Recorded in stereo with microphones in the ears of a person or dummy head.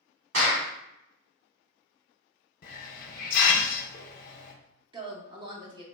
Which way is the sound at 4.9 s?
25° right (ahead or behind).